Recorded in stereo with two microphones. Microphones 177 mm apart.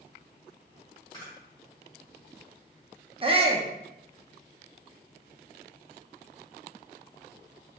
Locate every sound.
1.1 s a camera shutter: 25° left (ahead or behind), 2 m
3.2 s a shout: 30° right (ahead or behind), 0.6 m